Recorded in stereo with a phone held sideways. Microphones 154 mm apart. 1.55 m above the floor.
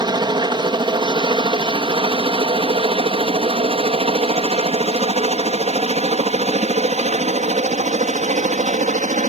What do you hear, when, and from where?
0.0 s a helicopter: 30° right (ahead or behind); by 9.3 s 55° right (ahead or behind)